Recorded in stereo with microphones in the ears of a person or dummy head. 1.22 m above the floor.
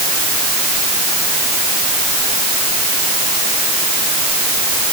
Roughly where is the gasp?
I don't hear a gasp.